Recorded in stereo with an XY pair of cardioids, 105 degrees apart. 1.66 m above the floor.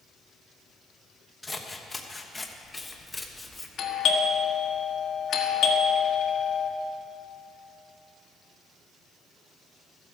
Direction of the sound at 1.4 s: 15° left.